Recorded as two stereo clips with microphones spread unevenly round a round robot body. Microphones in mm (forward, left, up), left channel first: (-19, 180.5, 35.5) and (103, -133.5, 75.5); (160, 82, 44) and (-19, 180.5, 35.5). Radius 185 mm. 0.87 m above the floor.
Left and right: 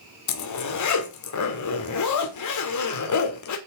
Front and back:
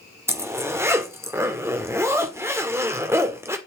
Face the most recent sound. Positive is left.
turn(degrees=75)